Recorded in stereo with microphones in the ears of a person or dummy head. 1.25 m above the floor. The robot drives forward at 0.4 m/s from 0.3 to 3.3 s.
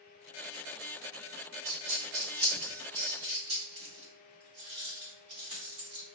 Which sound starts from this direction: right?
A dropped coin, at 1.6 s.